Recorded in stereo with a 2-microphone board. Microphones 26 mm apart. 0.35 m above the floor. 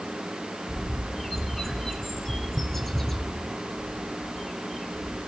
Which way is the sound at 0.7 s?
10° left (ahead or behind).